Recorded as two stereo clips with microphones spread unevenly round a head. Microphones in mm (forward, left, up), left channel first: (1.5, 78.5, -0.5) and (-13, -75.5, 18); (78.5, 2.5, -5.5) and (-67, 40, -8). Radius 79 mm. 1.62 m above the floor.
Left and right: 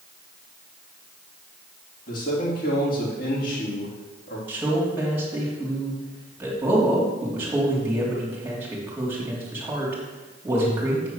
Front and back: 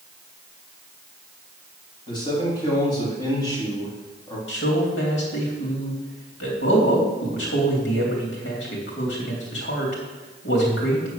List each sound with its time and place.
2.1 s a man speaking: 50° left, 3.5 m
4.5 s a man speaking: 20° right, 3 m